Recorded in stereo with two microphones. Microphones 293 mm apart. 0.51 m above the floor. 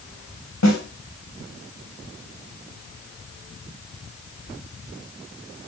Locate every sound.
0.6 s a snare drum: 70° left (ahead or behind), 3.5 m